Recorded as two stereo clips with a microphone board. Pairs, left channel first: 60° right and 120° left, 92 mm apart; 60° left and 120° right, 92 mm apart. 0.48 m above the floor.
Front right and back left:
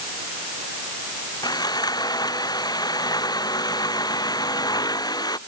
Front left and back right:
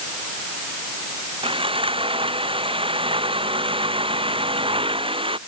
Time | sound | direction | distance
1.4 | sawing | 105° right | ?